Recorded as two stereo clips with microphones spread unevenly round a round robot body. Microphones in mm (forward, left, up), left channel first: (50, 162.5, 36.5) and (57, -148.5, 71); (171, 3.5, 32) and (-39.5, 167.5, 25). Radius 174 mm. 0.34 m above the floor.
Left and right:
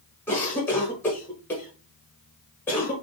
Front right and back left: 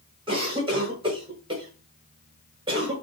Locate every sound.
0.3 s a cough: 140° left, 0.8 m